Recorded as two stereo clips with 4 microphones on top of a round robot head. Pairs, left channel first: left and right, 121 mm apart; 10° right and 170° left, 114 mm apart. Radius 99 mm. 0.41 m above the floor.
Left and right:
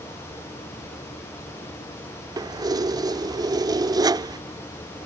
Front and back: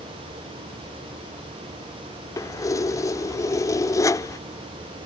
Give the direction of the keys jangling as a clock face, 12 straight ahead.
2 o'clock.